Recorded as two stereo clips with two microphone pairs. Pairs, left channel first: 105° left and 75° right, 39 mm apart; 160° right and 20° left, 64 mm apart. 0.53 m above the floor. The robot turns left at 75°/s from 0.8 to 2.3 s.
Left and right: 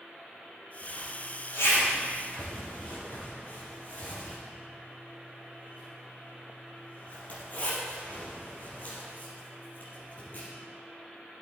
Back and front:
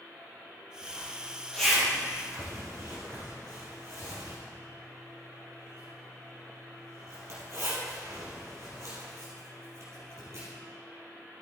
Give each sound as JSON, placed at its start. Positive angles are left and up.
{"t": 0.8, "sound": "a zipper", "azimuth_deg": 175, "distance_m": 3.5}